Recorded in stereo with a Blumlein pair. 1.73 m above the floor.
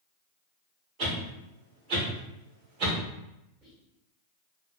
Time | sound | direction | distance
1.0 | a whoosh | 35° right | 2 m
3.6 | whispering | 25° right | 1.9 m